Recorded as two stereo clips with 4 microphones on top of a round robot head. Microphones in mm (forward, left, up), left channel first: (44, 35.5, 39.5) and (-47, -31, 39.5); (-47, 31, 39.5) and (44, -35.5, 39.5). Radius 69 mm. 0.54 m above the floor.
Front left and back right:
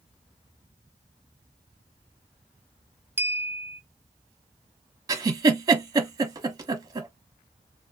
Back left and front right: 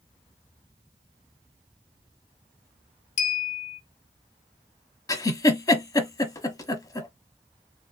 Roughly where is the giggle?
Behind.